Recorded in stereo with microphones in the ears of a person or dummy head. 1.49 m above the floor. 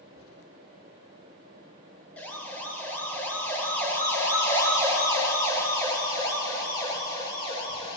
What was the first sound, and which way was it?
A siren, 10° left (ahead or behind).